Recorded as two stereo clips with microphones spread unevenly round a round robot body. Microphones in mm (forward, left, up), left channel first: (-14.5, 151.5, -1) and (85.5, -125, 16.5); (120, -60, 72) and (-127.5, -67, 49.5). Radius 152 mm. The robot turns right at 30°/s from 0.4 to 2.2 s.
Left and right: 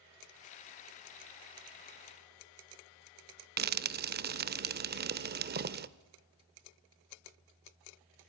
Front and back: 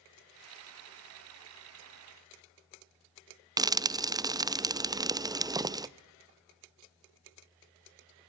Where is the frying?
115° right, 0.8 m.